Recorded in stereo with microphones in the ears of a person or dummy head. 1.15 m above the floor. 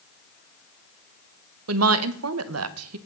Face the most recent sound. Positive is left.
turn(degrees=-80)